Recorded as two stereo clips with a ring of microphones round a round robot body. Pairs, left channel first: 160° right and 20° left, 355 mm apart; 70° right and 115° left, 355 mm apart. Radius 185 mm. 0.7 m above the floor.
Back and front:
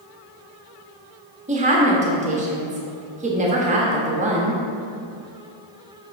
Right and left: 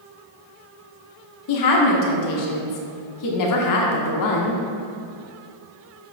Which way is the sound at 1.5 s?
45° right.